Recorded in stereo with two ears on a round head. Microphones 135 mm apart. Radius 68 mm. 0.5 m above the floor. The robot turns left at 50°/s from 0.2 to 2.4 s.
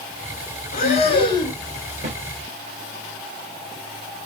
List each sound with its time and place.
0.7 s breathing: 65° left, 1.2 m; by 1.6 s 20° left, 1.2 m
2.0 s a snare drum: 50° right (ahead or behind), 1.5 m